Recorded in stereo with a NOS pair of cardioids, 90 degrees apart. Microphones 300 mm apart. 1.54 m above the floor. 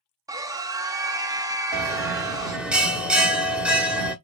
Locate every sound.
0.3 s a scream: 10° right, 0.7 m
1.7 s a bell: 5° right, 1.1 m